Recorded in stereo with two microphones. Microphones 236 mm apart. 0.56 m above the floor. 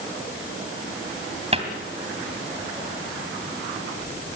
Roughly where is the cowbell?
I don't hear a cowbell.